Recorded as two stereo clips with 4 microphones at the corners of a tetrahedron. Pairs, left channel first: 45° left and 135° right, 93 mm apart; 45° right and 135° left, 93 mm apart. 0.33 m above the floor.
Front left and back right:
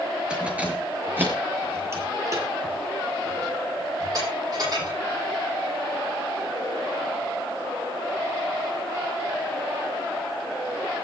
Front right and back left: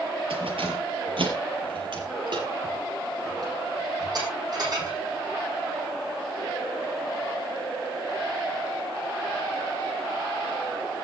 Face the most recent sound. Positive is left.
turn(degrees=180)